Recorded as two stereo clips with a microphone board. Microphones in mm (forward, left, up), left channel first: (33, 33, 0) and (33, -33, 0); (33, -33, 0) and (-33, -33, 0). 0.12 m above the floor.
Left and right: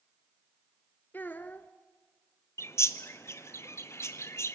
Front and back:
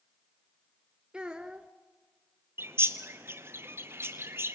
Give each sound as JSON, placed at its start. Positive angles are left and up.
{"t": 1.1, "sound": "a child speaking", "azimuth_deg": 115, "distance_m": 0.8}
{"t": 2.6, "sound": "a bird", "azimuth_deg": 130, "distance_m": 1.1}